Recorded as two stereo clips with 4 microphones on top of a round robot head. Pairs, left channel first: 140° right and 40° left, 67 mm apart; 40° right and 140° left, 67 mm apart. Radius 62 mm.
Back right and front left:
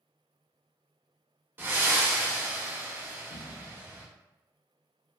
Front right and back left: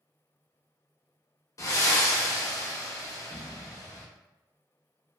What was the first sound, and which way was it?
Breathing, 15° right.